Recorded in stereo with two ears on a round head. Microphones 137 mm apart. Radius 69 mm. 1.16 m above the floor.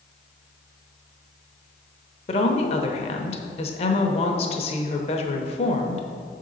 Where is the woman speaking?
40° left (ahead or behind), 0.8 m.